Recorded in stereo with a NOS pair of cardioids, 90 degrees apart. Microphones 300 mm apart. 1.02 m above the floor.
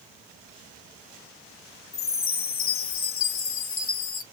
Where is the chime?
45° left, 1.0 m.